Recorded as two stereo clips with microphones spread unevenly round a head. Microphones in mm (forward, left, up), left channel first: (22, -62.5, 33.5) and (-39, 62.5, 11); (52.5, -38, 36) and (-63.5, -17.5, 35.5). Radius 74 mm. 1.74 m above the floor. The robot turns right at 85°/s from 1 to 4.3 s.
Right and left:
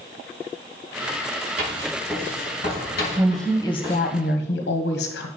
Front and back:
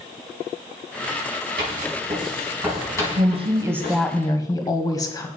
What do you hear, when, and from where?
1.6 s writing: 160° left, 6 m; by 4.0 s 5° left, 6 m
3.2 s a woman speaking: 170° right, 1.3 m; by 5.3 s 70° right, 1.3 m